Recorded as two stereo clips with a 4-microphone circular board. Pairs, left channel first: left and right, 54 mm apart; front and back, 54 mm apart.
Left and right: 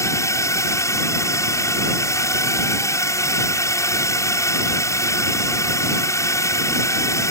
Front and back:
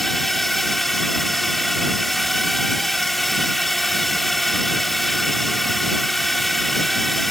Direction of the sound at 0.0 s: 90° left.